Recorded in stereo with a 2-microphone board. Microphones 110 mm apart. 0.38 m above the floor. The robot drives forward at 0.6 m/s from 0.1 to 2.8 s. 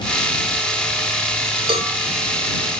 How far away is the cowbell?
About 2.5 m.